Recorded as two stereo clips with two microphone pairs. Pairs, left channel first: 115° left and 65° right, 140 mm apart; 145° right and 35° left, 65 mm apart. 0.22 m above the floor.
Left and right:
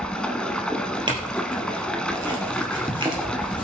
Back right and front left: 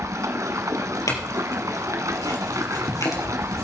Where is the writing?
15° left, 4 m.